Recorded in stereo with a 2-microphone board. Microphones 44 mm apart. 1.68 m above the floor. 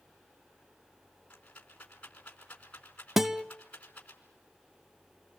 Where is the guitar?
10° right (ahead or behind), 0.6 m.